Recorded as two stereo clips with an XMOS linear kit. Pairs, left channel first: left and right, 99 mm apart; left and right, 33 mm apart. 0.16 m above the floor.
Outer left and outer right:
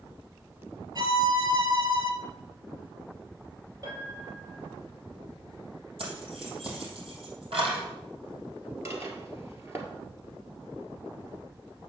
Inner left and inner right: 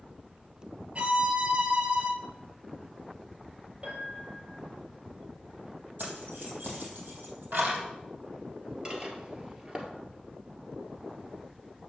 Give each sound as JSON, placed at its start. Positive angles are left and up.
{"t": 0.9, "sound": "a violin", "side_deg": -45, "distance_m": 1.2}
{"t": 3.8, "sound": "a piano", "side_deg": -45, "distance_m": 3.5}
{"t": 6.0, "sound": "keys jangling", "side_deg": -70, "distance_m": 3.5}
{"t": 8.8, "sound": "dishes clattering", "side_deg": -30, "distance_m": 1.8}